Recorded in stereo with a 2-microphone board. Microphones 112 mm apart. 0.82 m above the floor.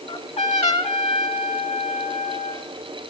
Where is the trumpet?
70° left (ahead or behind), 1.8 m.